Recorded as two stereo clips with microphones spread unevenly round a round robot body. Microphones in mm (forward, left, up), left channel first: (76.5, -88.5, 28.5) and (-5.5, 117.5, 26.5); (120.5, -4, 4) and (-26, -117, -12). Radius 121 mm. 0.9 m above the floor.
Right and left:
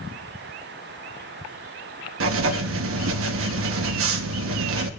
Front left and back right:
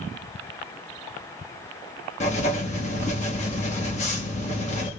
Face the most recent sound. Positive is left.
turn(degrees=100)